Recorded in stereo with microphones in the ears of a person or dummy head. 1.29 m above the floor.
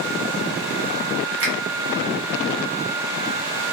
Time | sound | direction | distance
1.4 | a finger snap | 65° right (ahead or behind) | 1.1 m